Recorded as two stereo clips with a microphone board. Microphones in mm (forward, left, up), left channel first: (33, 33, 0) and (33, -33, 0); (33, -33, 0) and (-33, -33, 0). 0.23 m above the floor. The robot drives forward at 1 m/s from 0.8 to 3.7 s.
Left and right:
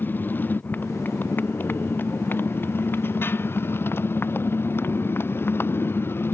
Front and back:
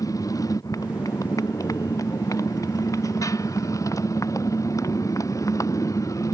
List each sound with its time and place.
0.0 s a motorcycle: 30° left; by 6.3 s 35° left